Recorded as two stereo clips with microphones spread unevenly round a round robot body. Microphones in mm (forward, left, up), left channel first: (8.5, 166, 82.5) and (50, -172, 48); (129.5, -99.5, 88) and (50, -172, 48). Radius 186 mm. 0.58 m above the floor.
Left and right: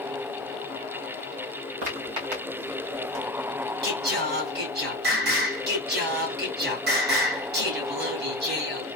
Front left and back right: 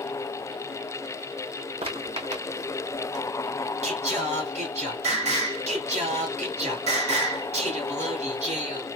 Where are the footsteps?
105° right, 2.5 m; by 3.2 s 125° right, 2 m.